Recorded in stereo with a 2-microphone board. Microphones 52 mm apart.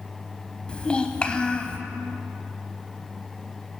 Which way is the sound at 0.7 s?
20° left (ahead or behind).